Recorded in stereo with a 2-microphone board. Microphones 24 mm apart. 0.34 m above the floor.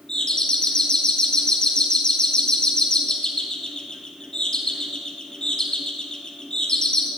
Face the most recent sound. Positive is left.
turn(degrees=30)  # may be behind; listen again after turning